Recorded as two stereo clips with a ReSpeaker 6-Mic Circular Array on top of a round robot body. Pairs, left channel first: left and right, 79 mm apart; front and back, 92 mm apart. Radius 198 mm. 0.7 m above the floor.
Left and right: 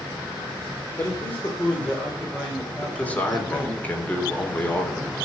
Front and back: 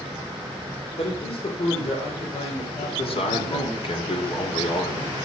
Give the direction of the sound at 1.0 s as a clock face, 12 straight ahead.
11 o'clock.